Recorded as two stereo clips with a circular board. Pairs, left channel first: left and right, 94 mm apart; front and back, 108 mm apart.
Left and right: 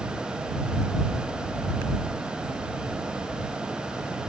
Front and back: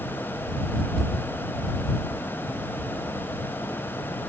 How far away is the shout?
I don't hear a shout.